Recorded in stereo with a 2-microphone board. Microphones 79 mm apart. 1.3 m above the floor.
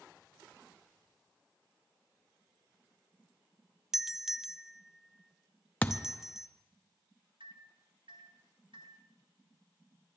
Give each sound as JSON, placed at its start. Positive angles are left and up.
{"t": 3.9, "sound": "a doorbell", "side_deg": -5, "distance_m": 0.6}
{"t": 5.8, "sound": "a thud", "side_deg": 20, "distance_m": 0.6}
{"t": 7.4, "sound": "a microwave", "side_deg": -80, "distance_m": 1.5}